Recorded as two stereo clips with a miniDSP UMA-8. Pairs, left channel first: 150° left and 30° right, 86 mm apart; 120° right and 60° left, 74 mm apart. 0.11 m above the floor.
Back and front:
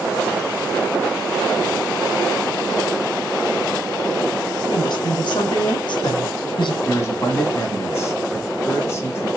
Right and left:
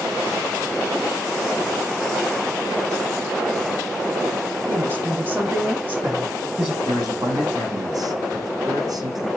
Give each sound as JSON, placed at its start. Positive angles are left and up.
{"t": 4.7, "sound": "a woman speaking", "azimuth_deg": 125, "distance_m": 6.0}
{"t": 6.8, "sound": "a man speaking", "azimuth_deg": 90, "distance_m": 5.0}